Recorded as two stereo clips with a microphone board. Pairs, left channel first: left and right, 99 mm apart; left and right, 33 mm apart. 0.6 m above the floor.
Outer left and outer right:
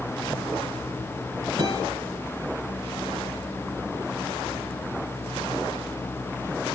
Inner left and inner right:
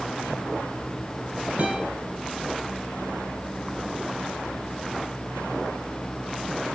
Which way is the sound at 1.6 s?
50° right (ahead or behind).